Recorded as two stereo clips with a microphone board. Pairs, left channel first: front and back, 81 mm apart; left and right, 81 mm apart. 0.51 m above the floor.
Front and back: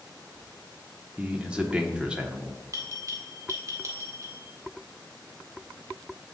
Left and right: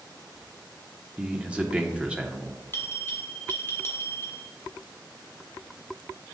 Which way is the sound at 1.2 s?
135° right.